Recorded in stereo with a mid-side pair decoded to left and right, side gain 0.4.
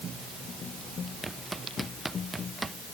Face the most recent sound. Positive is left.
turn(degrees=-25)